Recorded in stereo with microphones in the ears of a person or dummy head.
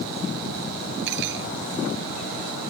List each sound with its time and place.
1.1 s cutlery clinking: 60° right (ahead or behind)